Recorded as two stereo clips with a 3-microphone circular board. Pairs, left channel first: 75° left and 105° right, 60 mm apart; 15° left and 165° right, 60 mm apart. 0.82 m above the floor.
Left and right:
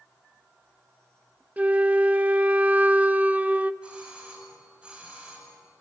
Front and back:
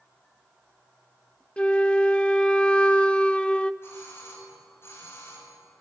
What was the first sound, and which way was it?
A flute, 50° right.